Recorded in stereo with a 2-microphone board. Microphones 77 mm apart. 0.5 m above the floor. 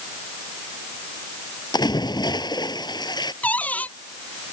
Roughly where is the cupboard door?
Centre.